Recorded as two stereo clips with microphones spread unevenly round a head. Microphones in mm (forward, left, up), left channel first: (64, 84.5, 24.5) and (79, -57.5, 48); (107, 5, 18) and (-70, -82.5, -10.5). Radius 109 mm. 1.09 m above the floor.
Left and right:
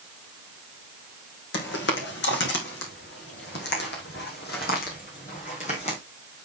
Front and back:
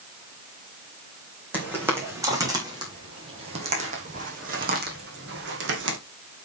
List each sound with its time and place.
1.5 s footsteps: 120° left, 3.5 m; by 6.0 s 165° left, 3 m